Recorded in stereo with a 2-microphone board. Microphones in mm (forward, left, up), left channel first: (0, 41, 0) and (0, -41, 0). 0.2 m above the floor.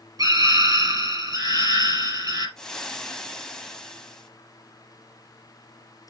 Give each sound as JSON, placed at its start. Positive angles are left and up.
{"t": 0.2, "sound": "a scream", "side_deg": -50, "distance_m": 4.5}
{"t": 2.6, "sound": "frying", "side_deg": 10, "distance_m": 1.2}